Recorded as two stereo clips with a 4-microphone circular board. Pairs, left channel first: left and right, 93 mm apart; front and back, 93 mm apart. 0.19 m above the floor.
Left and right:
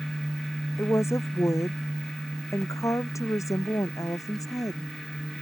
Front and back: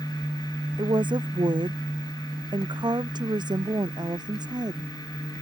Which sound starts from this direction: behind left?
A woman speaking, at 0.8 s.